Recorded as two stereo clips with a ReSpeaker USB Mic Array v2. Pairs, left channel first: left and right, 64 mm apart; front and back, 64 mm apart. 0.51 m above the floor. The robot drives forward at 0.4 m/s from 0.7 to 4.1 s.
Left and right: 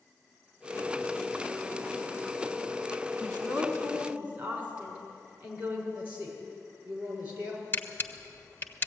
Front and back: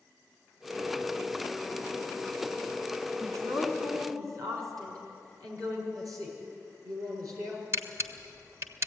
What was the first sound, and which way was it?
A woman speaking, 155° right.